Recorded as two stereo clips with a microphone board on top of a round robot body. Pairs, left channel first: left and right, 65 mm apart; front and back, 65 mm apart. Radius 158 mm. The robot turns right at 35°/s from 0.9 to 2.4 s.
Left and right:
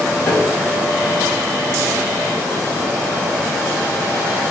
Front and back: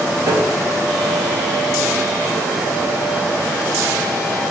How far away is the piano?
About 3.5 m.